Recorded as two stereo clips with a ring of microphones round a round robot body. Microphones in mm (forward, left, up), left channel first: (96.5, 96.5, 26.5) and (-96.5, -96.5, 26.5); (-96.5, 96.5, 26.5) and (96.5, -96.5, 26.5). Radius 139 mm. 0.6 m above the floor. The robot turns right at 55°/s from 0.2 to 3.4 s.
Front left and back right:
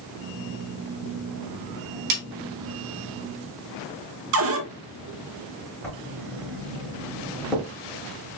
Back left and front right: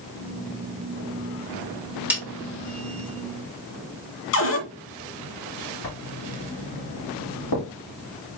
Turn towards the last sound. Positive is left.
turn(degrees=135)